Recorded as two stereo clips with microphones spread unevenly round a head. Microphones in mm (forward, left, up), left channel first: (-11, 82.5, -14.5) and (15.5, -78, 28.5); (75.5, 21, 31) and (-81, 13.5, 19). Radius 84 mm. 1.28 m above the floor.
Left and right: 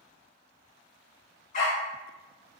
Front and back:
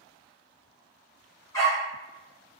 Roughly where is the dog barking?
Ahead left.